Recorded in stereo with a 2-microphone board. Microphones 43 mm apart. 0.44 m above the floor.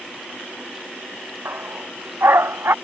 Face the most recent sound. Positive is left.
turn(degrees=-65)  # may be behind; listen again after turning